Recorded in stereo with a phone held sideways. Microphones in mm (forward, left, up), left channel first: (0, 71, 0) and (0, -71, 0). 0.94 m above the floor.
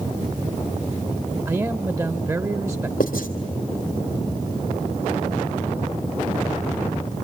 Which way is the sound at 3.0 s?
80° left.